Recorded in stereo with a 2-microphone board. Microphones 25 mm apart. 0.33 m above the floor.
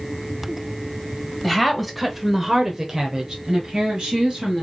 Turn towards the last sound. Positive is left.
turn(degrees=-15)  # may be behind; listen again after turning